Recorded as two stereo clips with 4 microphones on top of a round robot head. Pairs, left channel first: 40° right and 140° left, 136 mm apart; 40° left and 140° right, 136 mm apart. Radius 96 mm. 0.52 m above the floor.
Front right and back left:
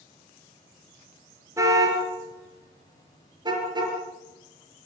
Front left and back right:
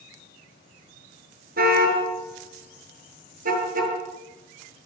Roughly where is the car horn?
Behind right.